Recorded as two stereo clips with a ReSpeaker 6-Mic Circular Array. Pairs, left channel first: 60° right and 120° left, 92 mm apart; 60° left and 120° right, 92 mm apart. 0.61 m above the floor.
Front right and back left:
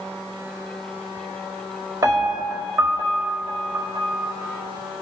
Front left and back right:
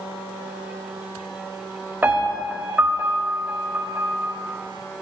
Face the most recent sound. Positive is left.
turn(degrees=170)